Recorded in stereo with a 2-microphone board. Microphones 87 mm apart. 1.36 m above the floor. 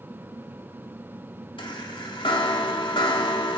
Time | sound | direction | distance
1.6 | a chime | 75° left (ahead or behind) | 2.5 m